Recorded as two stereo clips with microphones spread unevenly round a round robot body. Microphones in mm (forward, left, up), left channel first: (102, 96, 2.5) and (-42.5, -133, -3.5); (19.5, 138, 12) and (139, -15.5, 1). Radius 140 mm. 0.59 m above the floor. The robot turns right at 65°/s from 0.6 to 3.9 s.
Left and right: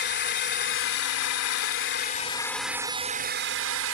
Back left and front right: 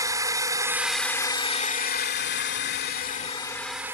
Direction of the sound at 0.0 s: 15° left.